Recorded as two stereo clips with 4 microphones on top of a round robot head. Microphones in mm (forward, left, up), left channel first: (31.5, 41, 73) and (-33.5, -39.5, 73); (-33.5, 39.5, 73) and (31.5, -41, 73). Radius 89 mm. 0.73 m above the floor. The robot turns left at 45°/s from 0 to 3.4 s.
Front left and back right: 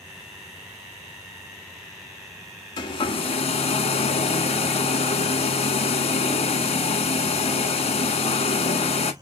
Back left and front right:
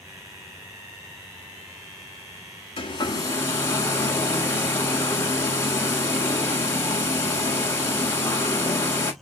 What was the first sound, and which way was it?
A hair dryer, 90° left.